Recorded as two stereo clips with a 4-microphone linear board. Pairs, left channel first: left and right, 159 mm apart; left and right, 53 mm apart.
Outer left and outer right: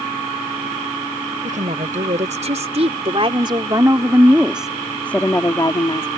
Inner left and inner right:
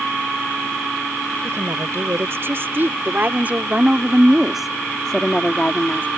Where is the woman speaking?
55° right (ahead or behind); by 6.1 s 35° left (ahead or behind).